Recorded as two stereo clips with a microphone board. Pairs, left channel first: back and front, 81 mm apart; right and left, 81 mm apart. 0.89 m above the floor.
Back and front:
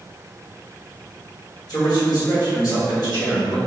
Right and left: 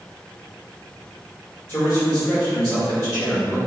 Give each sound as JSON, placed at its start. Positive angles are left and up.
{"t": 1.7, "sound": "a man speaking", "azimuth_deg": -150, "distance_m": 1.8}